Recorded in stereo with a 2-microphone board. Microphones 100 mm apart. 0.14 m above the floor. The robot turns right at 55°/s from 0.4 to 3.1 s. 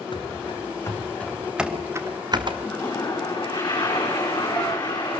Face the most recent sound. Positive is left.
turn(degrees=45)  # may be behind; listen again after turning